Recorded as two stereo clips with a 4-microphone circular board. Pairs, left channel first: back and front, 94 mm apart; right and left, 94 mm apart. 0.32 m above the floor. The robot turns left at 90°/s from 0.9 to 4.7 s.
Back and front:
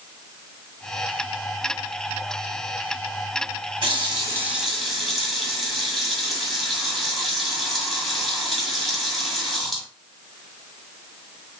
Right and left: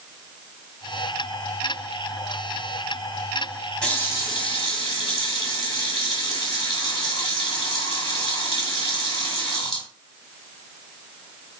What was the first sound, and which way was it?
A running tap, 10° right.